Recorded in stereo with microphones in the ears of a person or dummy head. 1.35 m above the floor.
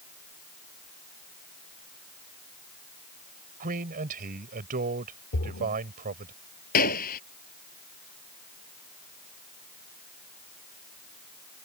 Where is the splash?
55° left (ahead or behind).